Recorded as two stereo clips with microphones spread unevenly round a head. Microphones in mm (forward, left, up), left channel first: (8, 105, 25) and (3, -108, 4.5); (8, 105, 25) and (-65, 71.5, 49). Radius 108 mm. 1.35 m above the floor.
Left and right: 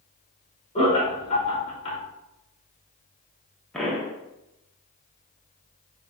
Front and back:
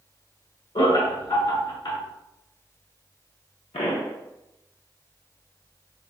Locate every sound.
0.8 s laughter: 25° left, 1.2 m
3.7 s a pop: 5° left, 0.8 m